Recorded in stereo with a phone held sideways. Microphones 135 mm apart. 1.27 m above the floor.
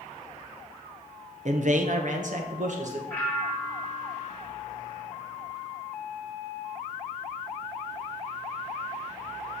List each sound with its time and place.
1.4 s a man speaking: 55° right (ahead or behind), 0.8 m
3.1 s a bell: 10° left (ahead or behind), 3.5 m